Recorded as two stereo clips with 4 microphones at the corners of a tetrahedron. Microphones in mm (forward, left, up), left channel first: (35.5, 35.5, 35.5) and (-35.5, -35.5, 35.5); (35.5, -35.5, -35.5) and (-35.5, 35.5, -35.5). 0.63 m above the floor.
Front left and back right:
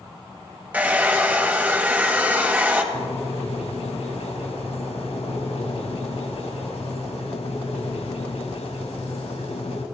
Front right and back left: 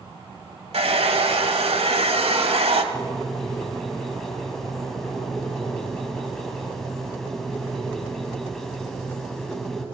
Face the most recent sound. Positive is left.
turn(degrees=45)